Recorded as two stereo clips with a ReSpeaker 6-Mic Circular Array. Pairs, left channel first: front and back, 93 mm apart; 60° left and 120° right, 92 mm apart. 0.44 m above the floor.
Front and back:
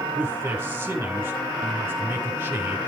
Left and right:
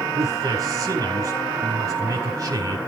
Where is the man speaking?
130° right, 1.7 m.